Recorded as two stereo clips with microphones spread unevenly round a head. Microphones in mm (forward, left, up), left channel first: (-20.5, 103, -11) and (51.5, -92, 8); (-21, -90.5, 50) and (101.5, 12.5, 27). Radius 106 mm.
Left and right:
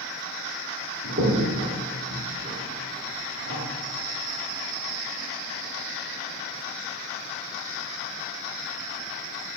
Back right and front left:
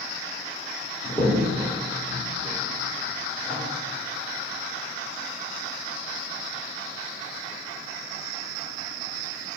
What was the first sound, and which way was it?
A crack, 50° right.